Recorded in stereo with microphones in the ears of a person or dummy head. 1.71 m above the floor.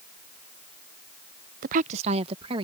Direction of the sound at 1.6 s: 50° right (ahead or behind).